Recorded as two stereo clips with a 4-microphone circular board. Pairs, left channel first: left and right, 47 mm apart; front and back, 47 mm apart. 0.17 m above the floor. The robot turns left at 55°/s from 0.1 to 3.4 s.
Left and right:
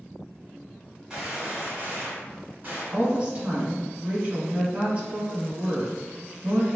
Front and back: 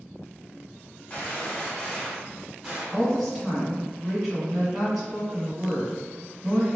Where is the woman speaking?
70° right, 1.3 m; by 6.8 s 95° right, 1.3 m.